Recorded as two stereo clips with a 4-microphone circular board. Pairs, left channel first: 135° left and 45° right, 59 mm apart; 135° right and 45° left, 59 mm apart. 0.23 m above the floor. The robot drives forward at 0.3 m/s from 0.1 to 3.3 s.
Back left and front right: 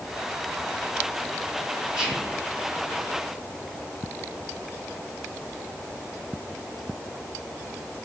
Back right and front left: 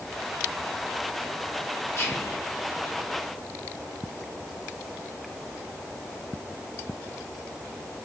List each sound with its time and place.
1.9 s whispering: 120° right, 1.4 m; by 2.4 s 125° right, 1.5 m